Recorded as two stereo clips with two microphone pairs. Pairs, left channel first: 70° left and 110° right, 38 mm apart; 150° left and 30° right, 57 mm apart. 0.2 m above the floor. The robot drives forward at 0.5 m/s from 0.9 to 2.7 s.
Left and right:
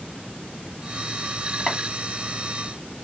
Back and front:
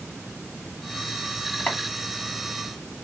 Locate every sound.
1.7 s chopping: 175° left, 1.2 m